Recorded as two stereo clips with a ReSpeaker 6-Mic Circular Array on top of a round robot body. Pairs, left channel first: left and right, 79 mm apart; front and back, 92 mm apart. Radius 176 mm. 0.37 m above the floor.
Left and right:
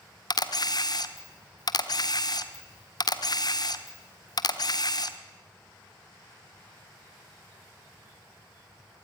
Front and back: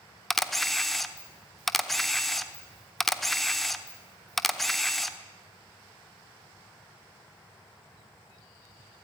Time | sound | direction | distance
0.3 | a camera shutter | 85° left | 1.2 m